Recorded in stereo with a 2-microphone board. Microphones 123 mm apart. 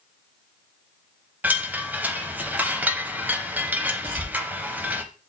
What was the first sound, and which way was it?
A chime, 15° right (ahead or behind).